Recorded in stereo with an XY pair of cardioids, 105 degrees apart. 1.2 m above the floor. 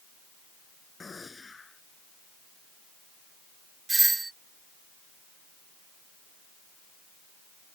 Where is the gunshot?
25° left.